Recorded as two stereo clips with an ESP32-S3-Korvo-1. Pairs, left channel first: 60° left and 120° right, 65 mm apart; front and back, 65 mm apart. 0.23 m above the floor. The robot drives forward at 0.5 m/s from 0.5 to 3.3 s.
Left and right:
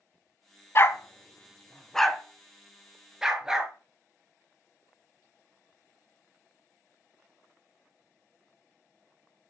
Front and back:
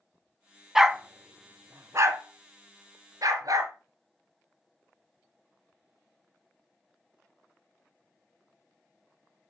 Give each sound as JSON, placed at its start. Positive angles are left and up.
{"t": 0.8, "sound": "a dog barking", "azimuth_deg": 95, "distance_m": 0.6}